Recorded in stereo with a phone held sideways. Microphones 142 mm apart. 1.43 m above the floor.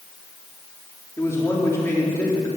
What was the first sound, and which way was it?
A man speaking, 20° left (ahead or behind).